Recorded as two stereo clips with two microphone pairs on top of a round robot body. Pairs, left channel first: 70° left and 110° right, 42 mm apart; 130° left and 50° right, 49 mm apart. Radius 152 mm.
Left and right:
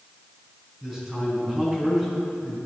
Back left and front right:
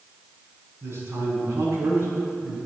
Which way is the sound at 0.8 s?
30° right.